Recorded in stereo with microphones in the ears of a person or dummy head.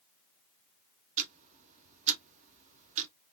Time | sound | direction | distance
1.2 | ticking | 35° right (ahead or behind) | 0.6 m